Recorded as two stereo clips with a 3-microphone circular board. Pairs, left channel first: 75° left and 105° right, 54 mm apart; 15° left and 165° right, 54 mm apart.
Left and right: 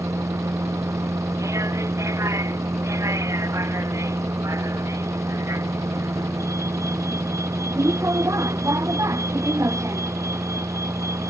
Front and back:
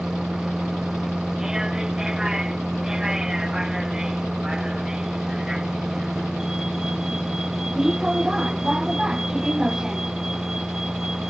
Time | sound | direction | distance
0.0 | a vehicle | 85° right | ?